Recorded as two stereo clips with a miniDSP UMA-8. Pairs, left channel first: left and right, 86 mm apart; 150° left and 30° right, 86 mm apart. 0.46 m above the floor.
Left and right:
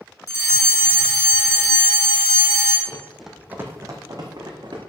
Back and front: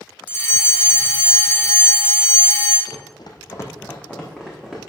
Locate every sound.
0.3 s a fire alarm: 105° left, 2.5 m
2.9 s running footsteps: 160° left, 1.3 m; by 4.8 s 120° right, 2.5 m